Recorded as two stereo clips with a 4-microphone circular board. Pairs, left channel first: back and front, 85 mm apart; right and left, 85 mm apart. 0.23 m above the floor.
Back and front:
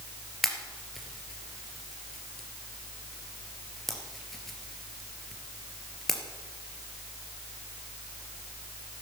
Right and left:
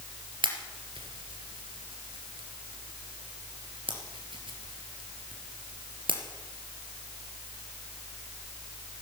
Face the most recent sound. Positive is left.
turn(degrees=95)